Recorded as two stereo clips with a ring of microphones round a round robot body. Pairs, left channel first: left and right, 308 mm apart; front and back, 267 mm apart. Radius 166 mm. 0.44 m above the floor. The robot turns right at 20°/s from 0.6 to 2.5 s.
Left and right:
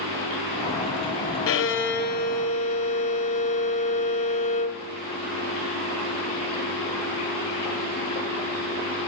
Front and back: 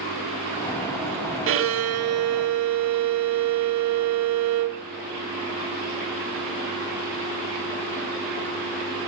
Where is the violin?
135° left, 0.9 m; by 4.8 s 160° left, 0.9 m.